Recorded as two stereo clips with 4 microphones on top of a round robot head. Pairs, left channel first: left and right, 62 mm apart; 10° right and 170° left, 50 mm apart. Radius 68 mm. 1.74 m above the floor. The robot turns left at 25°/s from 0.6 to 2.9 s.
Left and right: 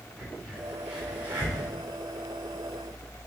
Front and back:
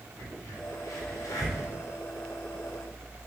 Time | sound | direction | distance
0.2 | a crack | 5° right | 4 m